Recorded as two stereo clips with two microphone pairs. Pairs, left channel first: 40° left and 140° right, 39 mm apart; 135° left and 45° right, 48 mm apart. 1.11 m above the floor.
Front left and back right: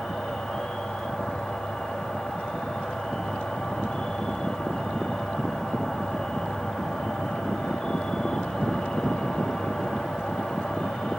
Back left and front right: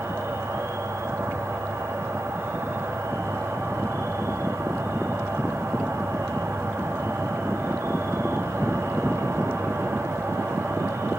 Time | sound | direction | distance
0.0 | an insect | 40° right | 2.0 m